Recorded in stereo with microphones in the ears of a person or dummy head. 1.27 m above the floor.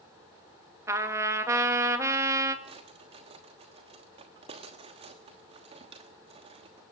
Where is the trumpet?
15° right (ahead or behind), 1.7 m.